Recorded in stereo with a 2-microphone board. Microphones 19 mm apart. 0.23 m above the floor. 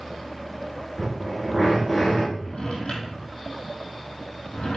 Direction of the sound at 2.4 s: 45° left (ahead or behind).